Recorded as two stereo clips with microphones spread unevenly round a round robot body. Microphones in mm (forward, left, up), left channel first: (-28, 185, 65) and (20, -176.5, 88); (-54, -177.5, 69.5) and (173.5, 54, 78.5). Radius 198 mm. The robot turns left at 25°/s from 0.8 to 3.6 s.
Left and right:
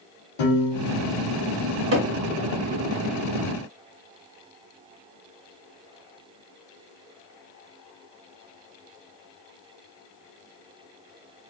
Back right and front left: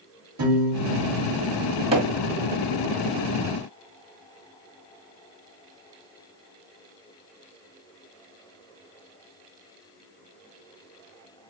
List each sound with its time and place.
0.4 s a piano: 95° left, 2.5 m; by 1.3 s 80° left, 2.5 m
1.9 s hammering: 25° right, 2.5 m; by 2.1 s 30° right, 2.5 m